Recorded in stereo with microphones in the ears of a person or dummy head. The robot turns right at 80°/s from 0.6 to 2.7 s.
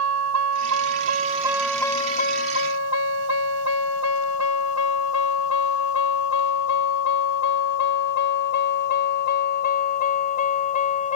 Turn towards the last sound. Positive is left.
turn(degrees=35)  # may be behind; listen again after turning